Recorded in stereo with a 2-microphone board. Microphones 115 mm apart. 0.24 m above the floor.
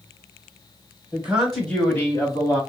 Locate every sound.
1.1 s a man speaking: 15° right (ahead or behind), 1.1 m; by 2.6 s 35° left (ahead or behind), 1.4 m